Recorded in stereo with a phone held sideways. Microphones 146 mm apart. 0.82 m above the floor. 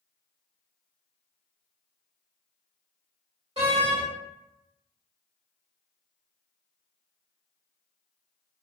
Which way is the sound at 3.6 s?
50° right (ahead or behind).